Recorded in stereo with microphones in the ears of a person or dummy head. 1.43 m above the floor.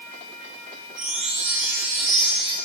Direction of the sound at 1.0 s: 10° right (ahead or behind).